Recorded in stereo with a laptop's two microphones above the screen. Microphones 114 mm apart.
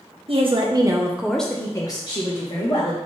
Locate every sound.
0.3 s a woman speaking: 55° right (ahead or behind), 0.8 m; by 3.0 s 55° left (ahead or behind), 1.2 m